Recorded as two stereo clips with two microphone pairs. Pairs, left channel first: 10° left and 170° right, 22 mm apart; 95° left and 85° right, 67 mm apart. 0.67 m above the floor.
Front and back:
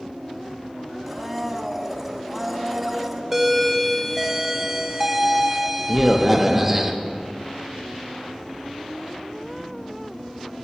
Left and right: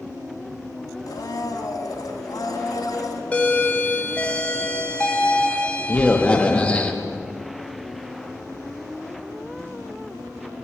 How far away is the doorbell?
About 1.0 m.